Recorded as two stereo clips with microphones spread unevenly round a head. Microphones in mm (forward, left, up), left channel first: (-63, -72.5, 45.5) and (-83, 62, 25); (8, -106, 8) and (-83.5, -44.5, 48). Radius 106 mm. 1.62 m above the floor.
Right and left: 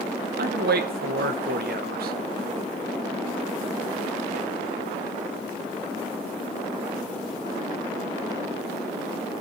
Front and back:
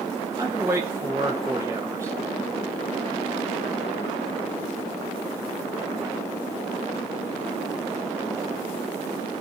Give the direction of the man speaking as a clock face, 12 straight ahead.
9 o'clock.